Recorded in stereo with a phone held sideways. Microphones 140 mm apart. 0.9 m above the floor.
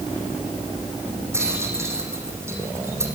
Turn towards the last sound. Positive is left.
turn(degrees=-20)  # may be behind; listen again after turning